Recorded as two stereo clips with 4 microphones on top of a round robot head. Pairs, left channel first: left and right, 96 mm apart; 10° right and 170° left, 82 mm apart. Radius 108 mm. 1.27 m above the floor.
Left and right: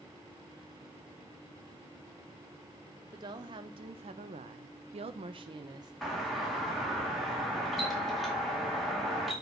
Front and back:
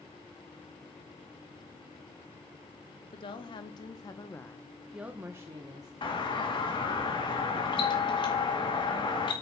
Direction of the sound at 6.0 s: Straight ahead.